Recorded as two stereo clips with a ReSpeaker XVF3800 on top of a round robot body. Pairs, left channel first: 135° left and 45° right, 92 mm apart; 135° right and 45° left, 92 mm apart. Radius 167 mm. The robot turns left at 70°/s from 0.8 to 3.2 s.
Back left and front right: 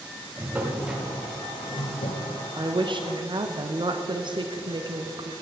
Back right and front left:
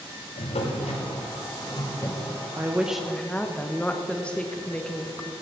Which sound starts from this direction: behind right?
A drawer, at 0.4 s.